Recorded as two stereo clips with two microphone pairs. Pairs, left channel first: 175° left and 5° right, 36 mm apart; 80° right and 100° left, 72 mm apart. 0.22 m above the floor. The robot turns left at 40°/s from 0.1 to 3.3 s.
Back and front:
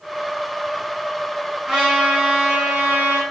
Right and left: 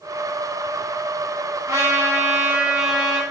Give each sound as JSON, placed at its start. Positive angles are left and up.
{"t": 1.7, "sound": "a trumpet", "azimuth_deg": 70, "distance_m": 1.3}